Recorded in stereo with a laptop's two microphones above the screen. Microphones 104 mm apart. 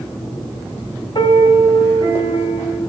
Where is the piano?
55° left (ahead or behind), 3.5 m.